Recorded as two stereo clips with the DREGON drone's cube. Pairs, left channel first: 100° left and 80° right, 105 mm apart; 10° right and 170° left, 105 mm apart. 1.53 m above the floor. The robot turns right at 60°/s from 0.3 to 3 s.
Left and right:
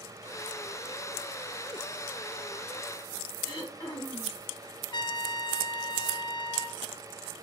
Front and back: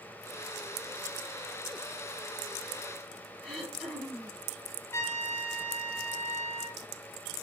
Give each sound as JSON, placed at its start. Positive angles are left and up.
{"t": 3.4, "sound": "throat clearing", "azimuth_deg": 80, "distance_m": 1.7}
{"t": 4.9, "sound": "a trumpet", "azimuth_deg": 50, "distance_m": 0.6}